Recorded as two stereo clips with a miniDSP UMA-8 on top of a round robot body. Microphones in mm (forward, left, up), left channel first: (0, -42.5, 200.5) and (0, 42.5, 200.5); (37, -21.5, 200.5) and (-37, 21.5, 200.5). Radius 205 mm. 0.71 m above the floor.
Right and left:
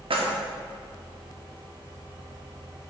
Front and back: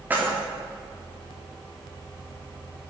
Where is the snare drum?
I don't hear a snare drum.